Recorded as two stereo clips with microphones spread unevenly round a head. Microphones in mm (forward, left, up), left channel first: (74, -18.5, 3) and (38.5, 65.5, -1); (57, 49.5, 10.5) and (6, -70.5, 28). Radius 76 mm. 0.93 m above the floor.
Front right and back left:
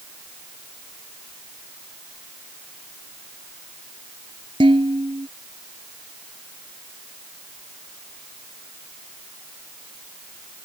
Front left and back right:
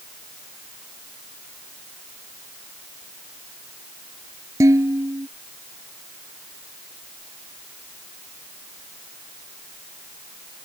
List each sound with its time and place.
4.6 s dishes clattering: 175° left